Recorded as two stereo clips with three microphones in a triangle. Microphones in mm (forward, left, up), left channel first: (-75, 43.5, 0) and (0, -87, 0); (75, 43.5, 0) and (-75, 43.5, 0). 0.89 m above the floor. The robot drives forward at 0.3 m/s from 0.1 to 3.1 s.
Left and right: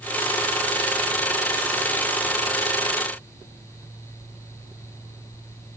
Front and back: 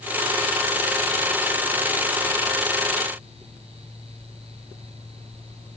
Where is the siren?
No siren in this recording.